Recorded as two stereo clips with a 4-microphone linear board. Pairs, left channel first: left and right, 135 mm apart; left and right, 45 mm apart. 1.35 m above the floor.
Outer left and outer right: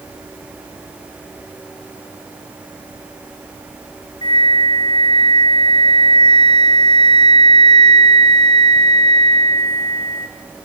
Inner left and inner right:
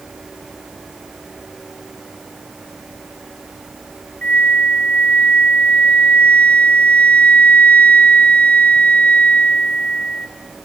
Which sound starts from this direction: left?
A flute, at 4.2 s.